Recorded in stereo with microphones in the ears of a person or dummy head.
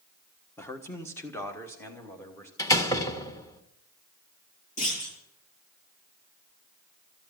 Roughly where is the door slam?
Centre.